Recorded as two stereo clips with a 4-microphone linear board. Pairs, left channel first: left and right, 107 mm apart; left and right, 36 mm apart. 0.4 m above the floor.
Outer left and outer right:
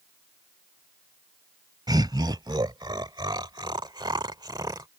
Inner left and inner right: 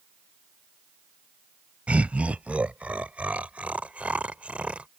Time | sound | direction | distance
1.9 | laughter | 40° right (ahead or behind) | ?